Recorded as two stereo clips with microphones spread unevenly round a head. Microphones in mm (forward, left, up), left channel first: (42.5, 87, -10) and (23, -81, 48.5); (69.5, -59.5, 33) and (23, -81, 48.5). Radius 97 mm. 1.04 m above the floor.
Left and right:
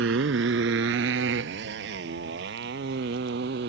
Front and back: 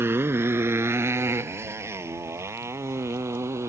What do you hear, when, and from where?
0.0 s a motorcycle: 120° right; by 3.7 s 130° right